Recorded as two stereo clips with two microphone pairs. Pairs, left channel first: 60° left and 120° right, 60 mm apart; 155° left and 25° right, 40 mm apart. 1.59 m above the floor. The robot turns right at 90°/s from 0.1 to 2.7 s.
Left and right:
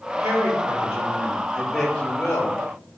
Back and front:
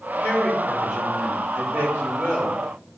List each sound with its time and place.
0.2 s a woman speaking: 170° right, 4.5 m; by 2.6 s 50° left, 4.5 m